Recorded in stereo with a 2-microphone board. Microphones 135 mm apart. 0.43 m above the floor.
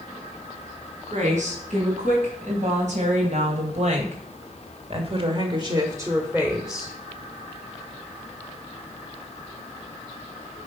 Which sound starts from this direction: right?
A woman speaking, at 1.1 s.